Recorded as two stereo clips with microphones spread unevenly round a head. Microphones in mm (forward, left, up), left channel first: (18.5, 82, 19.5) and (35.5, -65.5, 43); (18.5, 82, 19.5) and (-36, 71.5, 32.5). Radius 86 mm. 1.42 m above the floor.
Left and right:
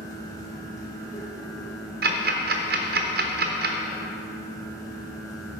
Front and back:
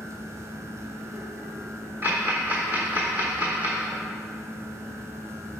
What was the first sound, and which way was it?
A fan, 155° left.